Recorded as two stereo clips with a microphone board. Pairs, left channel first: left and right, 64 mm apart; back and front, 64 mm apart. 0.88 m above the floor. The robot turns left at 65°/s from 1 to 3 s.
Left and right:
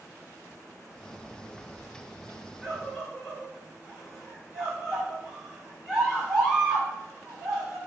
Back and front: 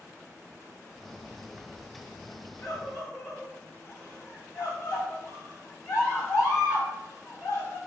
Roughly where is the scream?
Behind right.